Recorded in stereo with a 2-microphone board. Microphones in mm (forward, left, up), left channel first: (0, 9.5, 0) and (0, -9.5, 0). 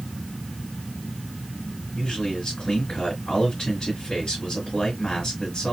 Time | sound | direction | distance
1.9 | a man speaking | 30° left (ahead or behind) | 2 m